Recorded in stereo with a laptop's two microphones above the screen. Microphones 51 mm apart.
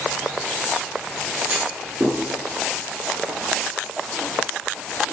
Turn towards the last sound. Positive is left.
turn(degrees=-20)  # may be behind; listen again after turning